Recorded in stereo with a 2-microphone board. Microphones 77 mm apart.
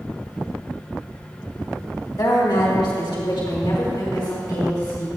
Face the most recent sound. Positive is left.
turn(degrees=65)  # may be behind; listen again after turning